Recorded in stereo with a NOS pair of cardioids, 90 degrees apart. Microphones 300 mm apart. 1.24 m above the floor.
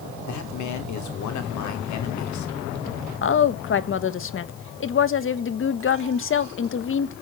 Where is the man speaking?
65° left, 3 m.